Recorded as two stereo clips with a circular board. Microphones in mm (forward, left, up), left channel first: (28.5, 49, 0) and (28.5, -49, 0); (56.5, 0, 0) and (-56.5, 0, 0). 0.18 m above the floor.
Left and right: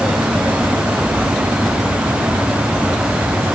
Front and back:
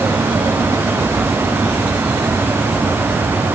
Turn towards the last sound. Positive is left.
No sound to turn to.